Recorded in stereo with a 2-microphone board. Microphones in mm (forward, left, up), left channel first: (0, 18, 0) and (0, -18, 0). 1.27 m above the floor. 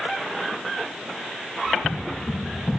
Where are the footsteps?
40° left (ahead or behind), 1.8 m; by 2.8 s 45° left (ahead or behind), 2.5 m.